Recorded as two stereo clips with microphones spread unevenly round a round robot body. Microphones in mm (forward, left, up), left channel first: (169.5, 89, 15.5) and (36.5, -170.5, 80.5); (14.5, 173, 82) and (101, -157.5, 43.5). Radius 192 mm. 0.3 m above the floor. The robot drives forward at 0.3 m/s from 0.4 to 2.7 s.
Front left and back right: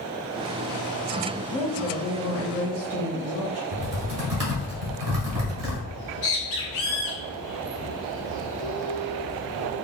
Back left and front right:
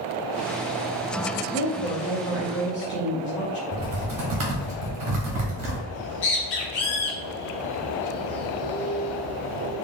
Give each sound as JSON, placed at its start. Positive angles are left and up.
{"t": 1.5, "sound": "a woman speaking", "azimuth_deg": 80, "distance_m": 0.9}
{"t": 3.7, "sound": "typing on a keyboard", "azimuth_deg": -115, "distance_m": 1.4}
{"t": 5.9, "sound": "a bird", "azimuth_deg": 130, "distance_m": 1.1}